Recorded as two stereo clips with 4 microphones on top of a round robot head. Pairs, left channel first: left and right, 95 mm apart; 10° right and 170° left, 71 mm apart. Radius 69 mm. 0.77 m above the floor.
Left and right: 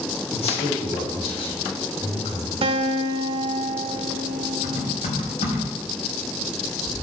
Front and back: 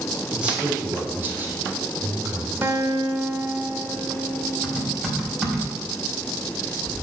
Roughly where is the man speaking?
Left.